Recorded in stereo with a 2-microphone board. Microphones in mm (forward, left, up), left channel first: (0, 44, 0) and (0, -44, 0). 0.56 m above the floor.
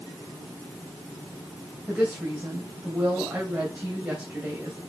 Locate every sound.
1.9 s a woman speaking: 20° right (ahead or behind), 2.5 m